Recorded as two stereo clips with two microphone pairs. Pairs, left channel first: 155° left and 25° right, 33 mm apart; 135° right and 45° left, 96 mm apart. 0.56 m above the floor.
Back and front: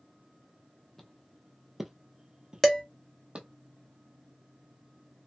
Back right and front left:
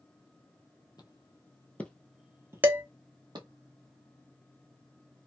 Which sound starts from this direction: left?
Dishes clattering, at 2.6 s.